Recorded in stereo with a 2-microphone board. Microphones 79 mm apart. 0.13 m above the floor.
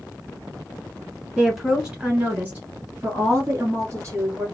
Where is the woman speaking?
5° right (ahead or behind), 1.5 m; by 4.5 s 35° right (ahead or behind), 2 m.